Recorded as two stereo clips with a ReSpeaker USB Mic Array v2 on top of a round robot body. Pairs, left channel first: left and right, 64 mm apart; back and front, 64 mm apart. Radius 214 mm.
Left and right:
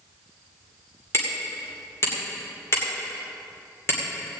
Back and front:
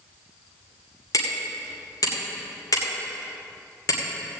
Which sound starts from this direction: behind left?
Hammering, at 1.1 s.